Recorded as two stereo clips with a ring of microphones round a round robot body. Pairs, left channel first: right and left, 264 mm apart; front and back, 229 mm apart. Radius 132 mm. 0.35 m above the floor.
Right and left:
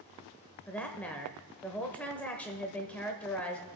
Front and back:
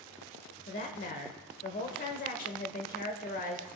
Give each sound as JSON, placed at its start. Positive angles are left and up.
{"t": 0.7, "sound": "a woman speaking", "azimuth_deg": -10, "distance_m": 0.9}